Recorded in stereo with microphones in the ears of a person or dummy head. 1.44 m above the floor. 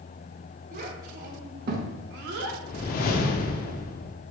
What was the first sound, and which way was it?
A child speaking, 45° right (ahead or behind).